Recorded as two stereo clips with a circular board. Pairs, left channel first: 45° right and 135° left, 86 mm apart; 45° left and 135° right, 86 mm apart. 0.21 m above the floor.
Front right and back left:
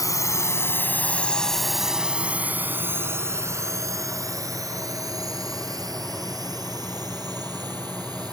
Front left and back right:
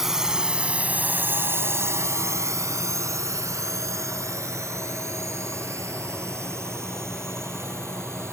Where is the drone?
50° right; by 8.3 s 170° left.